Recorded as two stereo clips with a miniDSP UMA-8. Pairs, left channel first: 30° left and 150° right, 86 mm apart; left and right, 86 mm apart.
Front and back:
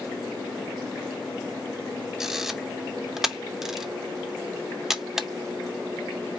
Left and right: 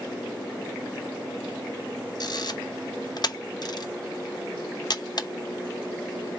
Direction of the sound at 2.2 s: 125° left.